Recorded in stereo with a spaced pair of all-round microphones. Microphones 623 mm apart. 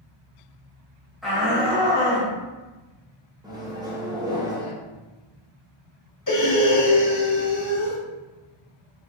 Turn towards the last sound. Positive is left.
turn(degrees=30)  # may be behind; listen again after turning